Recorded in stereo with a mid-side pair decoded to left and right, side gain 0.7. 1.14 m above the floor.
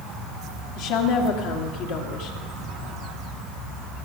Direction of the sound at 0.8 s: 70° left.